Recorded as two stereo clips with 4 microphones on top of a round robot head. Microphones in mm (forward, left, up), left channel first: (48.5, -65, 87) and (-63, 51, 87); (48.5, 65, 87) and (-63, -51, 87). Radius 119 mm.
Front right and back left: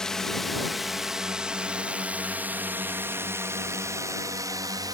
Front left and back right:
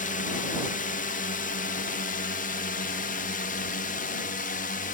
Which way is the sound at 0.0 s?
40° left.